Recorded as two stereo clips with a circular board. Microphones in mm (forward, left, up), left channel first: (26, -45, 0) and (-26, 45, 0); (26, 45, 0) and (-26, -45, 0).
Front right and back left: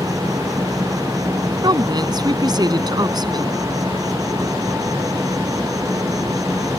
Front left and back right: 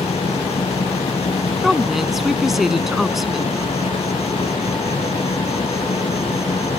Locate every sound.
0.0 s an insect: 65° left
1.6 s a woman speaking: 155° left